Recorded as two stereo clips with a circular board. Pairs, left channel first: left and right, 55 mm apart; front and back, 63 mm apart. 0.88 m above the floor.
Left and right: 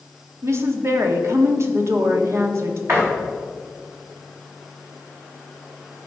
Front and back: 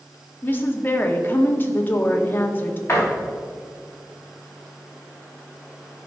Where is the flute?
No flute in this recording.